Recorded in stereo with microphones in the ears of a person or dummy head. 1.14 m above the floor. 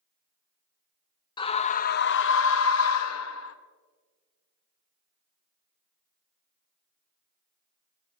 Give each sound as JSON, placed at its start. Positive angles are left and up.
{"t": 1.4, "sound": "a scream", "side_deg": 20, "distance_m": 0.7}